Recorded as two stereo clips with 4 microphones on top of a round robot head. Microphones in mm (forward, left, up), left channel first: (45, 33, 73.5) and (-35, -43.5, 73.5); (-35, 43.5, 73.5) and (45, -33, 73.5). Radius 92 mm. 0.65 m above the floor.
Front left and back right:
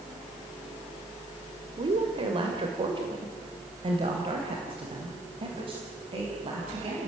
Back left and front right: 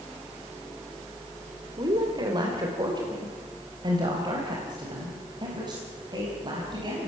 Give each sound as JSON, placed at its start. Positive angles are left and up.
{"t": 1.8, "sound": "a woman speaking", "azimuth_deg": -95, "distance_m": 2.5}